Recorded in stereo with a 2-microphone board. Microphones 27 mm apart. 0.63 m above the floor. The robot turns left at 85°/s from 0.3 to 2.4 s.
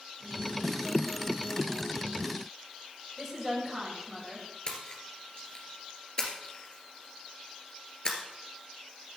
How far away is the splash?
About 2 m.